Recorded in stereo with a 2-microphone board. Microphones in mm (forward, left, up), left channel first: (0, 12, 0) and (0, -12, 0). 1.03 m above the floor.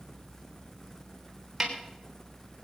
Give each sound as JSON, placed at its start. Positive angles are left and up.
{"t": 1.6, "sound": "a snare drum", "side_deg": -15, "distance_m": 3.5}